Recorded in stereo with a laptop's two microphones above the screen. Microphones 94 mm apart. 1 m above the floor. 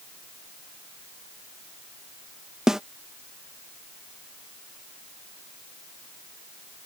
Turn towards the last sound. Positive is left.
turn(degrees=-5)  # may be behind; listen again after turning